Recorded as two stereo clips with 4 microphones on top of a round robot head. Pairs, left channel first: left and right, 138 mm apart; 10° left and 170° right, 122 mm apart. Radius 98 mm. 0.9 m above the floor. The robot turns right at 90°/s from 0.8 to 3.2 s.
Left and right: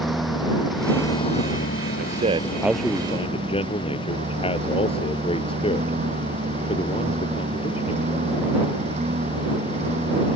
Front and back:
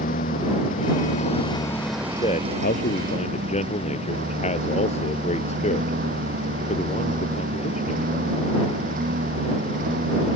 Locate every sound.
0.0 s a lawn mower: straight ahead; by 10.4 s 145° right
2.0 s a man speaking: 70° right; by 8.2 s 40° left